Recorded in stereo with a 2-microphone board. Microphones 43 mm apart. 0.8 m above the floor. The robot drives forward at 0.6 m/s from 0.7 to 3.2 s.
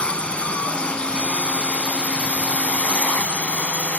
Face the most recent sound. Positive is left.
turn(degrees=35)  # may be behind; listen again after turning